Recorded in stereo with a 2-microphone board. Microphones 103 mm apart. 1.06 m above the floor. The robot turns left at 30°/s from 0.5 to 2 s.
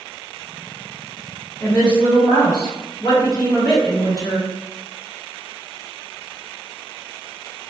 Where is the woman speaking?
25° left (ahead or behind), 1.4 m; by 4.5 s 35° left (ahead or behind), 1.4 m.